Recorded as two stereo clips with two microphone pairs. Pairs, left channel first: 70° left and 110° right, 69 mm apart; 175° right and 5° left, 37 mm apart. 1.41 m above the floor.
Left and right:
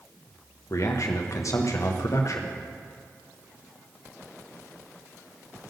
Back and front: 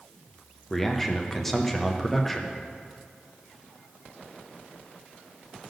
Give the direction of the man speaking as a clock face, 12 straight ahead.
9 o'clock.